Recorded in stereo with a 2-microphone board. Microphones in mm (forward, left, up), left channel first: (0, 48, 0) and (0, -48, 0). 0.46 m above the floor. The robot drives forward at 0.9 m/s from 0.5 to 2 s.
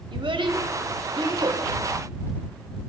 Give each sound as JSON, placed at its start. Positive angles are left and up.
{"t": 0.1, "sound": "a child speaking", "side_deg": -65, "distance_m": 1.7}